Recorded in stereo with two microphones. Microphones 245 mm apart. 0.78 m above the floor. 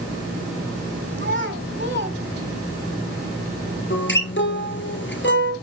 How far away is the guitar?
About 2 m.